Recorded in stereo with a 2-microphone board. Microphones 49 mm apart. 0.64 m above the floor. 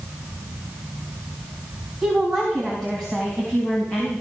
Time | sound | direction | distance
2.0 | a woman speaking | 5° left (ahead or behind) | 4 m